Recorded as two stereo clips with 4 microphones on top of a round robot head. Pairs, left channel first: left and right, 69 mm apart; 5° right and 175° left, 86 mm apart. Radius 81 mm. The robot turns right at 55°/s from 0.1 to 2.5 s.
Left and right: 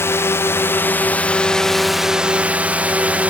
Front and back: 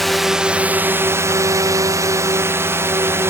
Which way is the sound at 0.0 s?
85° left.